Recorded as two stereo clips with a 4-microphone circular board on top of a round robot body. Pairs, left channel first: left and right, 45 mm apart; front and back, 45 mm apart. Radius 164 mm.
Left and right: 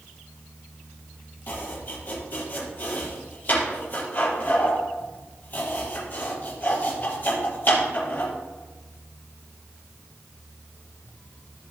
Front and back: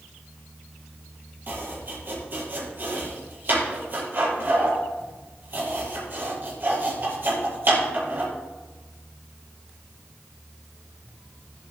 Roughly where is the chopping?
Behind left.